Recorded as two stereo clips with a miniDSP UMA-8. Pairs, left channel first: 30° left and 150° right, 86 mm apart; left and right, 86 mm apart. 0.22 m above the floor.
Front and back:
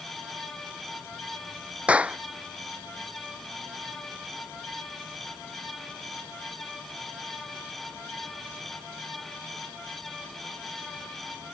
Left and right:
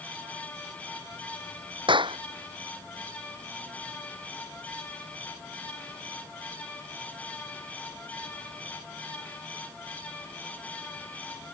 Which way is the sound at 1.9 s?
75° right.